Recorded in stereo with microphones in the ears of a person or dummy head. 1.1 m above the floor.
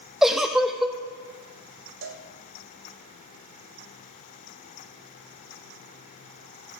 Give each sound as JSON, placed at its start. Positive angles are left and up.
{"t": 0.2, "sound": "a giggle", "side_deg": 0, "distance_m": 0.7}
{"t": 2.0, "sound": "a cowbell", "side_deg": -65, "distance_m": 1.3}